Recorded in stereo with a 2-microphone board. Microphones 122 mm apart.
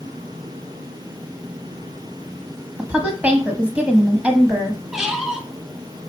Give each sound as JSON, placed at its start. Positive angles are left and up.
{"t": 2.8, "sound": "a woman speaking", "side_deg": -10, "distance_m": 1.0}
{"t": 4.9, "sound": "a squeak", "side_deg": -5, "distance_m": 0.6}